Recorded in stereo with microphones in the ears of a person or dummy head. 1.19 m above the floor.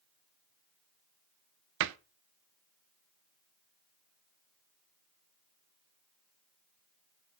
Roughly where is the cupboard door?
Right.